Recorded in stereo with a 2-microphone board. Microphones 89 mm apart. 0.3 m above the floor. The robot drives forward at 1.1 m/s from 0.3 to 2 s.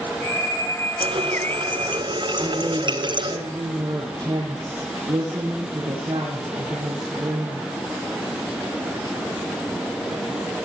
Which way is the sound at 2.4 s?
45° right (ahead or behind).